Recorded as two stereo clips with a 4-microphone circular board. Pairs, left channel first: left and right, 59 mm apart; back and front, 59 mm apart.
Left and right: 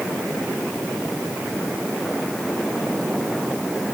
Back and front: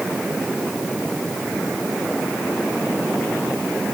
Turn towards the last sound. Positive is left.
No sound to turn to.